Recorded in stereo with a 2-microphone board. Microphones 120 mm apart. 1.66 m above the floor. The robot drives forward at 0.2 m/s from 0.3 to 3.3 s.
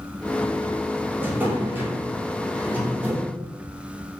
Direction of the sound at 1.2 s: 15° right (ahead or behind).